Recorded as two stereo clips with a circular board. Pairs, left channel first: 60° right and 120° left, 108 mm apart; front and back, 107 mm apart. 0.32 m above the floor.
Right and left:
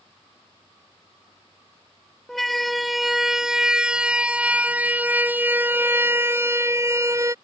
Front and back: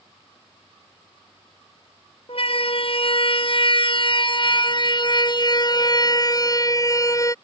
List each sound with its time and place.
2.3 s a siren: 30° left; by 7.3 s 60° left